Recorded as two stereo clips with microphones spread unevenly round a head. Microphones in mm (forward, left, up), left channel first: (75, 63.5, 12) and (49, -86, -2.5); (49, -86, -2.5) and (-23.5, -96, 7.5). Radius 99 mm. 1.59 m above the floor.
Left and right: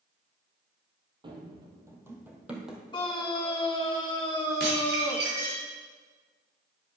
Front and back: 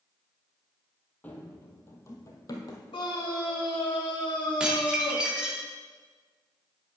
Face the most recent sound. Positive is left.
turn(degrees=-95)